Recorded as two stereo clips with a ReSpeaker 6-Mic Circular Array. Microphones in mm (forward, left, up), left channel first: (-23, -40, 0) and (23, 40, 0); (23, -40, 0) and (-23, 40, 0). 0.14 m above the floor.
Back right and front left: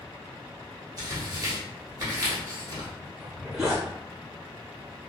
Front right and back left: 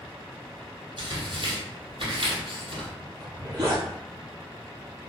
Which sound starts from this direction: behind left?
A zipper, at 3.2 s.